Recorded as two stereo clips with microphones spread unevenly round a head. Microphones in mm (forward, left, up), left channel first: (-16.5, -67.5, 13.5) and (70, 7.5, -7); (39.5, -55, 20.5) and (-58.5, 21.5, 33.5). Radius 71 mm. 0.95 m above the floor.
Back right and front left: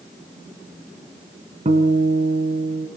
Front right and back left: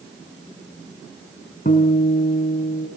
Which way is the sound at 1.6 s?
5° left.